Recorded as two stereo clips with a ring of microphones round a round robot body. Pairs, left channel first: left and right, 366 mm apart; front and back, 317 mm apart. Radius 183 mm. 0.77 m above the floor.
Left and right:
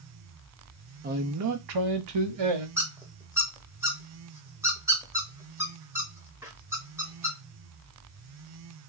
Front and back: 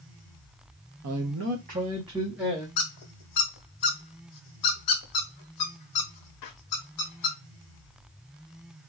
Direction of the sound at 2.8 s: 10° right.